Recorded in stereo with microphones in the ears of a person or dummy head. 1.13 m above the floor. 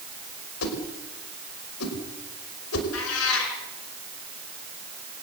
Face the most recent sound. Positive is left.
turn(degrees=85)